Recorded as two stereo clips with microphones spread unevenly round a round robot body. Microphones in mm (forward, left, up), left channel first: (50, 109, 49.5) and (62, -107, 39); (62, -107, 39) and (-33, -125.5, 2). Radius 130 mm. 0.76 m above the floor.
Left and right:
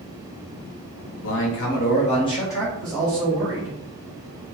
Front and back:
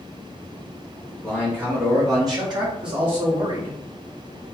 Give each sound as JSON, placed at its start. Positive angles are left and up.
{"t": 1.2, "sound": "a man speaking", "azimuth_deg": 110, "distance_m": 1.0}